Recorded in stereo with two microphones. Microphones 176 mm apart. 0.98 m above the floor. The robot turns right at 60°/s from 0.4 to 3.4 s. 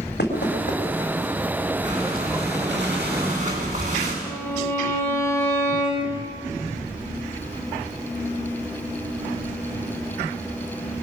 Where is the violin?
15° left (ahead or behind), 5.5 m.